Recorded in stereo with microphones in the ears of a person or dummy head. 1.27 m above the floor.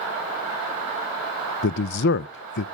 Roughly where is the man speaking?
Left.